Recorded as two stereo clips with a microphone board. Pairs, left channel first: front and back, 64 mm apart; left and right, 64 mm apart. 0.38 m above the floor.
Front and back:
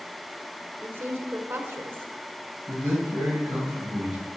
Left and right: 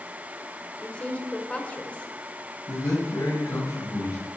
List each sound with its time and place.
0.8 s a woman speaking: 150° left, 1.3 m
2.7 s a man speaking: 105° left, 2.5 m